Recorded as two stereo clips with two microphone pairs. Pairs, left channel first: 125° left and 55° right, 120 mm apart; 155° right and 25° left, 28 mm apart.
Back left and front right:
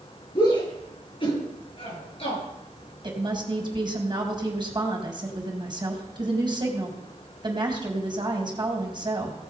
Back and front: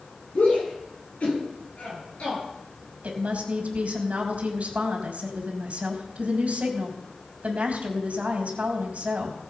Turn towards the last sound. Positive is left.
turn(degrees=-5)